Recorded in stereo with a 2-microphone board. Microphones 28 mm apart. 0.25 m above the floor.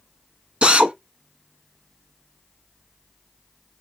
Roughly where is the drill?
Right.